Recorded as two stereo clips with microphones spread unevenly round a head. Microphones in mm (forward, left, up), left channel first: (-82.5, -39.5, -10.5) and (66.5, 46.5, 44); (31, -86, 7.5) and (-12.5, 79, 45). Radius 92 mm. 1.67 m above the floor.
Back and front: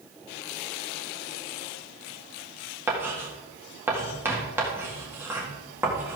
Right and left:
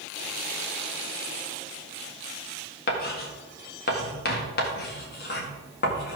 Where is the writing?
40° right, 1.8 m.